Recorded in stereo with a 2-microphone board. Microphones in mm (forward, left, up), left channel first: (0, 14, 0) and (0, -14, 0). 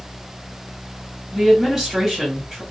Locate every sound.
1.3 s a woman speaking: 10° right (ahead or behind), 1.4 m